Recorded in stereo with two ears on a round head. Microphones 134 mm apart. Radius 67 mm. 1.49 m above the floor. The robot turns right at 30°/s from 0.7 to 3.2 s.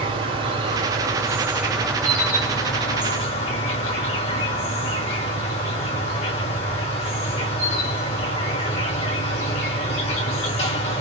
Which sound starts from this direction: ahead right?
An insect, at 0.0 s.